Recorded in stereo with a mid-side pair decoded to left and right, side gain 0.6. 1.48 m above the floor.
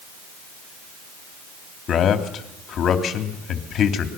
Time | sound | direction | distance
1.9 | a man speaking | 45° left | 3 m